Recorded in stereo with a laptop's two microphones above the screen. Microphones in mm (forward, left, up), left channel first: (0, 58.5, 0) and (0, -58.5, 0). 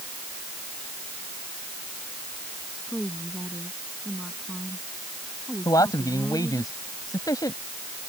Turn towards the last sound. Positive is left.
turn(degrees=30)  # may be behind; listen again after turning